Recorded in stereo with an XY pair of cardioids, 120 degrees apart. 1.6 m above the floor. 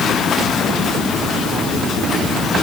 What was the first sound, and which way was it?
Only background noise.